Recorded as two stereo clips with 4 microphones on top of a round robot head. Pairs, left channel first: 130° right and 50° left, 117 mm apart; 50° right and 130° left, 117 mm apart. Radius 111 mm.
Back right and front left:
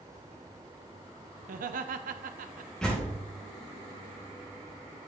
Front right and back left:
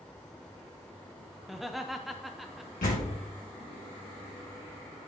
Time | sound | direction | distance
1.4 | laughter | 40° left | 0.6 m
2.8 | a door slam | 45° right | 2 m